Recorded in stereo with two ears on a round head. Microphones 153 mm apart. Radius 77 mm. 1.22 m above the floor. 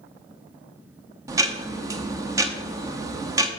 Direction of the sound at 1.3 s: 20° right (ahead or behind).